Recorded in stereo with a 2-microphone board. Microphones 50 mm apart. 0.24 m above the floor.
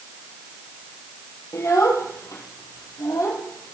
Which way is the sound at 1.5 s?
75° left (ahead or behind).